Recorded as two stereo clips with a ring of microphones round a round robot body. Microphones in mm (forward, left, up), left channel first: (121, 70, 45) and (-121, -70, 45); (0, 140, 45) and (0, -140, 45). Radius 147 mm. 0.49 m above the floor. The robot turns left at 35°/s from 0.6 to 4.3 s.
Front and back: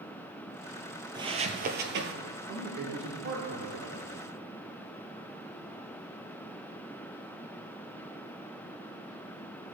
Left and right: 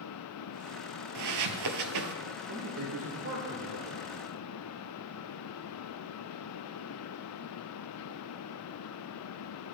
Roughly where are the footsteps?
Right.